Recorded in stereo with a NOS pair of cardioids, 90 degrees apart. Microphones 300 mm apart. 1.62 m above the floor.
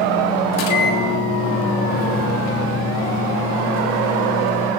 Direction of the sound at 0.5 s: 60° left.